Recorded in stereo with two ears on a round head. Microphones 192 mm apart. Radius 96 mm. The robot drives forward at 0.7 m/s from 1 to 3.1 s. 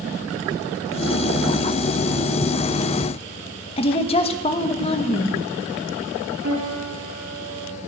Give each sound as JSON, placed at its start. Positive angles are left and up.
{"t": 3.8, "sound": "a woman speaking", "side_deg": 30, "distance_m": 1.2}
{"t": 6.4, "sound": "a piano", "side_deg": -60, "distance_m": 8.0}